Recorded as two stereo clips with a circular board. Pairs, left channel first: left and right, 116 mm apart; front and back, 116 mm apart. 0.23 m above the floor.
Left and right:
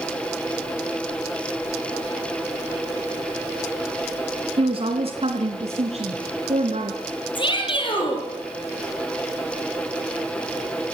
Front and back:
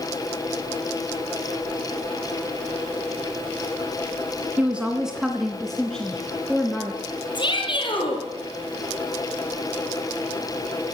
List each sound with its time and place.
4.6 s a woman speaking: 105° right, 1.9 m; by 7.0 s 75° right, 3 m
7.3 s a shout: 45° left, 7 m